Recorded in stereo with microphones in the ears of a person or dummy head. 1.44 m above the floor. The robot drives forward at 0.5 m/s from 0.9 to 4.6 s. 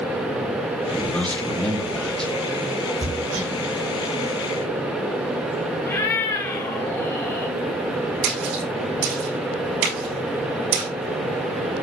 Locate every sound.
0.9 s a man speaking: 5° left (ahead or behind), 1.8 m
3.0 s hammering: 45° right (ahead or behind), 4 m; by 3.5 s 40° right (ahead or behind), 4 m
5.8 s a cat meowing: 20° left (ahead or behind), 3 m
8.2 s a splash: 70° right (ahead or behind), 6 m